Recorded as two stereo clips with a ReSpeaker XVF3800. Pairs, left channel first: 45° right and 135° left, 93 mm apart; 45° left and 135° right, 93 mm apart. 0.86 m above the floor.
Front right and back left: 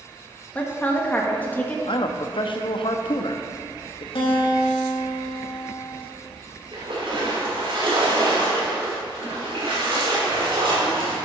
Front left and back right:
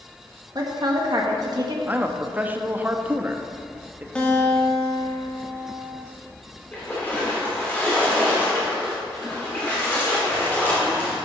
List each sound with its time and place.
0.6 s a woman speaking: 115° right, 1.4 m
1.9 s a man speaking: 65° right, 0.8 m
4.2 s a guitar: 30° right, 1.7 m
6.7 s a splash: 110° left, 3 m